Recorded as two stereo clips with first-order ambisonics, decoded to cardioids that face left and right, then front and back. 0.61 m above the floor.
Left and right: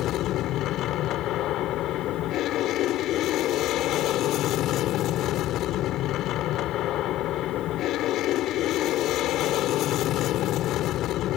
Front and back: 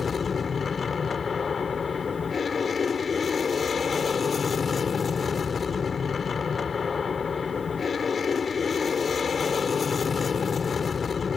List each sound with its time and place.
0.0 s an aircraft: 65° left